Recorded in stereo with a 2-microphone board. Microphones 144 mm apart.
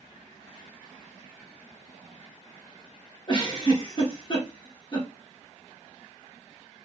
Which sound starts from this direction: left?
A giggle, at 3.3 s.